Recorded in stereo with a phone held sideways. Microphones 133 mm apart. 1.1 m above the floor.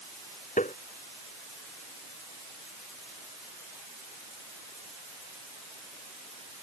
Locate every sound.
0.6 s tapping: 70° left (ahead or behind)